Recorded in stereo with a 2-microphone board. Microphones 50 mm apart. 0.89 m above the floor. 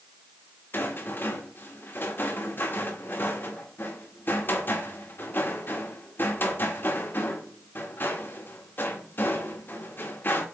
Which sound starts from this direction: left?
A rattle, at 0.7 s.